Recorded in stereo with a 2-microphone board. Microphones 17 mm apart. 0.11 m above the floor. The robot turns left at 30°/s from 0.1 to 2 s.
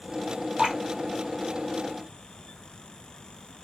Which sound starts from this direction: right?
Dripping, at 0.6 s.